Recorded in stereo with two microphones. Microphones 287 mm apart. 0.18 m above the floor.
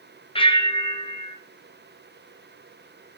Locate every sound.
0.3 s a bell: 20° left (ahead or behind), 1.7 m